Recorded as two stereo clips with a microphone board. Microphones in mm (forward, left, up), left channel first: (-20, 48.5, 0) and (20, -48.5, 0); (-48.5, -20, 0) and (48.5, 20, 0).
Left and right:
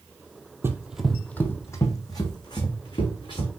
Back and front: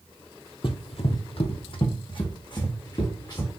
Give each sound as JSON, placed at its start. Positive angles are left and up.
{"t": 0.6, "sound": "running footsteps", "azimuth_deg": -130, "distance_m": 0.5}